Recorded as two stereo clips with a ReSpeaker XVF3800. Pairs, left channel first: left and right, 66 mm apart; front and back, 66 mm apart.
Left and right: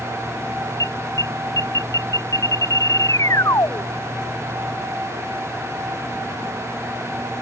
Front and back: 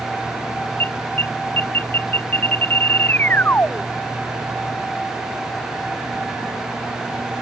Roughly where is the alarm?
Ahead left.